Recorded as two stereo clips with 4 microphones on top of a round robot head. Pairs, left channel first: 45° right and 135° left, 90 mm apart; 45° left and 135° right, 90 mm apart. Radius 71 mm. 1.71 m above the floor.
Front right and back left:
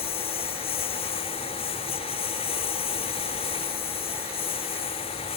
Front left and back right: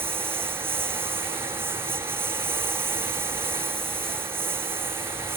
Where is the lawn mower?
65° right.